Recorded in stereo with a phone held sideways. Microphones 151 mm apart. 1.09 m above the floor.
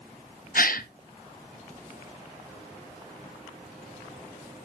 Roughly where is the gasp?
Left.